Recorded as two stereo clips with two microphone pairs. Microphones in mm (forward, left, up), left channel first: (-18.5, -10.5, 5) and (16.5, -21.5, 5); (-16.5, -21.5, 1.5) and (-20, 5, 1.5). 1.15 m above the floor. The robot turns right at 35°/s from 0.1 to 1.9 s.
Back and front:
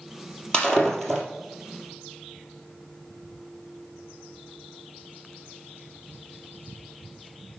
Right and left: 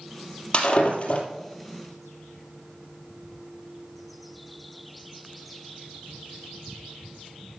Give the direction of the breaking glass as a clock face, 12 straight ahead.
4 o'clock.